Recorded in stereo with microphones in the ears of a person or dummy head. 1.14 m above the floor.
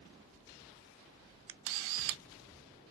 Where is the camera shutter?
75° right (ahead or behind), 0.5 m.